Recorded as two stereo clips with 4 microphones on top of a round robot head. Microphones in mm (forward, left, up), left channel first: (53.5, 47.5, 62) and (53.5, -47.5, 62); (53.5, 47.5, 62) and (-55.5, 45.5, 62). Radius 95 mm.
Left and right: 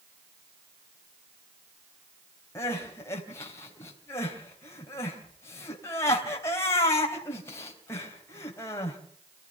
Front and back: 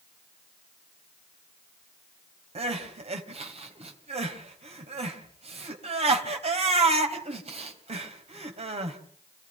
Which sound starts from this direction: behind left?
Crying, at 2.5 s.